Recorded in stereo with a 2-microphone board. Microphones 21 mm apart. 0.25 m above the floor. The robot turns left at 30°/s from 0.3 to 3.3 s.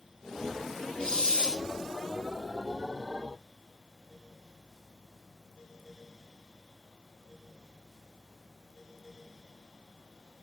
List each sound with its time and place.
1.0 s a hiss: 40° left (ahead or behind), 2.0 m